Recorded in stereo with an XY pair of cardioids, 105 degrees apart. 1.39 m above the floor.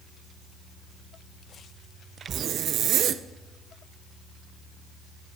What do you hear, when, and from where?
2.3 s a zipper: 70° right, 0.6 m